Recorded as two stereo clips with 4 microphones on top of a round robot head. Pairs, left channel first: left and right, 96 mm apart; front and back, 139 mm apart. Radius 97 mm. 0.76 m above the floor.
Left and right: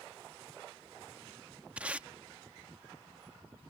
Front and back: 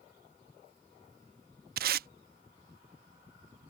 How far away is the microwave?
I don't hear a microwave.